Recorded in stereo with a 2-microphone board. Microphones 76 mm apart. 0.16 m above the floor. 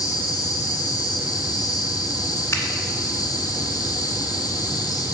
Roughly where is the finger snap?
Left.